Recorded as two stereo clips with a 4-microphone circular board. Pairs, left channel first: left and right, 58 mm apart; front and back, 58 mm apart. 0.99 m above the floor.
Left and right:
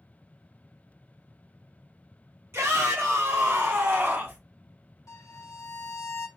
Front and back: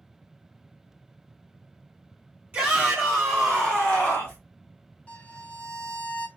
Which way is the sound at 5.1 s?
70° left.